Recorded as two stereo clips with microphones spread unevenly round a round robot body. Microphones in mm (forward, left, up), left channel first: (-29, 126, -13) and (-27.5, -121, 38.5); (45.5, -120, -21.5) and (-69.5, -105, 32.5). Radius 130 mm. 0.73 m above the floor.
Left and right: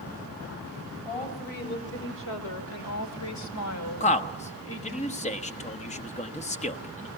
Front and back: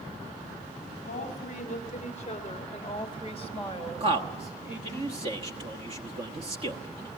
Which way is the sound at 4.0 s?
105° left.